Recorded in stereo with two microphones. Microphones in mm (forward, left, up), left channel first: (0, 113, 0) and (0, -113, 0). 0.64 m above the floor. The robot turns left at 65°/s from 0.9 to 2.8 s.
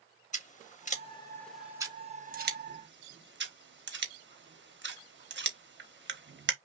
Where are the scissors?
35° left (ahead or behind), 0.9 m; by 6.5 s 55° right (ahead or behind), 0.9 m.